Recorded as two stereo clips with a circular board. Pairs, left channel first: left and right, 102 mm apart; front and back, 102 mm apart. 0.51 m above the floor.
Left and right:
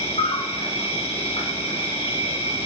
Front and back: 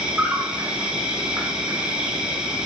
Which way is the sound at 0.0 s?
100° left.